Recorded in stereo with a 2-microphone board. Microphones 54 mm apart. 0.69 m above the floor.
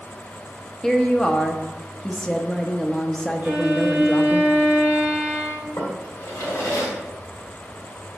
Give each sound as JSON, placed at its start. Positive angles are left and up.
{"t": 0.8, "sound": "a woman speaking", "side_deg": 15, "distance_m": 0.8}
{"t": 3.4, "sound": "a violin", "side_deg": -30, "distance_m": 3.0}
{"t": 5.8, "sound": "a drawer", "side_deg": 75, "distance_m": 1.7}